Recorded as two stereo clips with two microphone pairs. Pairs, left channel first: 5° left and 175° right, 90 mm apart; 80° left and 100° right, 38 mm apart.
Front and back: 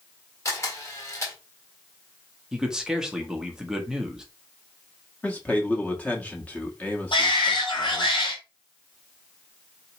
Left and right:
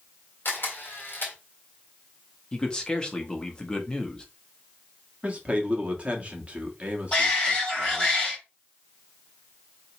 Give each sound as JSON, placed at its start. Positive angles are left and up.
{"t": 0.5, "sound": "a camera shutter", "azimuth_deg": 55, "distance_m": 1.6}
{"t": 2.5, "sound": "a man speaking", "azimuth_deg": 110, "distance_m": 0.9}
{"t": 5.2, "sound": "a man speaking", "azimuth_deg": -65, "distance_m": 1.1}
{"t": 7.1, "sound": "a shout", "azimuth_deg": 15, "distance_m": 2.0}